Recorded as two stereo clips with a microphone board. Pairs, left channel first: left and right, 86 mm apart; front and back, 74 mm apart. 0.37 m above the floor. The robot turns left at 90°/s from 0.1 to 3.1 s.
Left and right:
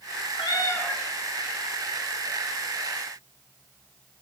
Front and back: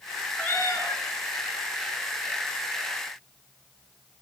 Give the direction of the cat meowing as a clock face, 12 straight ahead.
10 o'clock.